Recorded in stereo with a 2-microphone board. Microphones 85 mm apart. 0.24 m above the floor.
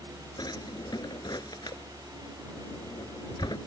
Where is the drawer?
55° left (ahead or behind).